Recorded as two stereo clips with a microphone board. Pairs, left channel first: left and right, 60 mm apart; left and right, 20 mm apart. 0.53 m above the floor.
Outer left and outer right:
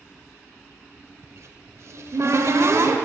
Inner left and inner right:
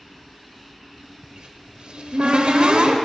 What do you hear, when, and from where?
1.2 s a cupboard door: 55° right (ahead or behind), 1.2 m